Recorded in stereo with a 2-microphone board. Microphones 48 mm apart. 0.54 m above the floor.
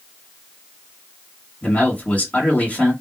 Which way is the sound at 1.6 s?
30° left (ahead or behind).